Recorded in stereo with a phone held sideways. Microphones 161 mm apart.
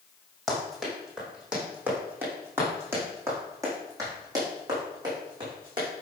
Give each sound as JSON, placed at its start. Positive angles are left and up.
{"t": 0.5, "sound": "running footsteps", "side_deg": 0, "distance_m": 4.5}